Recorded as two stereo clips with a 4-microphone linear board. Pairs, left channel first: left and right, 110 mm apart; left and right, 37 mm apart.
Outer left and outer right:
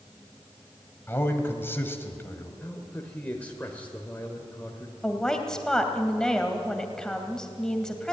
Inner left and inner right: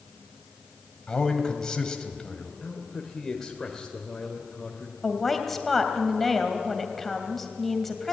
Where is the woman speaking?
5° left (ahead or behind), 2.5 m.